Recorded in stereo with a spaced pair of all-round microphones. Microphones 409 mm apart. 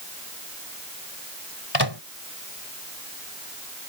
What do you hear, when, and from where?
1.7 s a microwave: 75° left (ahead or behind)